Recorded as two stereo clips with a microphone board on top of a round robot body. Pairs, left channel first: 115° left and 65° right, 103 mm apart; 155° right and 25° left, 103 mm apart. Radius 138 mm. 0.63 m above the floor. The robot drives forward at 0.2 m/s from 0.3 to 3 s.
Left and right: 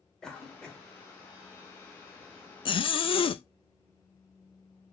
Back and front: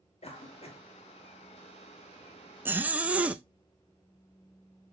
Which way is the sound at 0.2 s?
165° right.